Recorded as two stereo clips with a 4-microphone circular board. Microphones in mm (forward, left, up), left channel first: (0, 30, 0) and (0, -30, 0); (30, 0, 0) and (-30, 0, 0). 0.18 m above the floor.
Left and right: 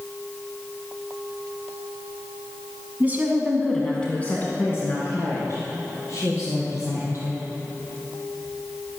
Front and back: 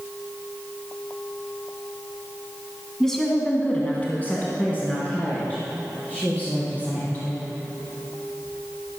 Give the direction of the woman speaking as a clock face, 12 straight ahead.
3 o'clock.